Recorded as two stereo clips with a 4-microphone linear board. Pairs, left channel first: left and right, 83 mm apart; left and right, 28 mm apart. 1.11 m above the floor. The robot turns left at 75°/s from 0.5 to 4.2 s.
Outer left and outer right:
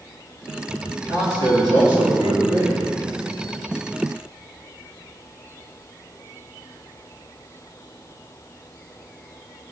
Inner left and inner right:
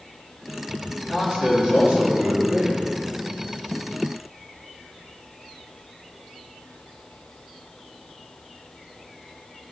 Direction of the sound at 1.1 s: 35° right.